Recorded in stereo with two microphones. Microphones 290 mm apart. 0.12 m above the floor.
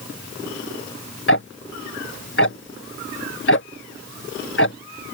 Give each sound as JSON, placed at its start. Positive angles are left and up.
{"t": 1.3, "sound": "ticking", "side_deg": 45}